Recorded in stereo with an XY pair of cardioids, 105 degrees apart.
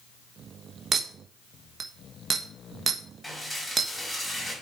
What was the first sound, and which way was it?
A clink, 45° right.